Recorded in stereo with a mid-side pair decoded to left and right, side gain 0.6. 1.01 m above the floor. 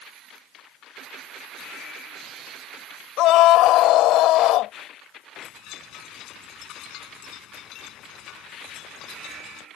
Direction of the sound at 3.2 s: 65° left.